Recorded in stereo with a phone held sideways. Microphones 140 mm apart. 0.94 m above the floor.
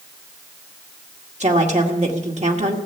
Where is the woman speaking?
55° right (ahead or behind), 1.9 m.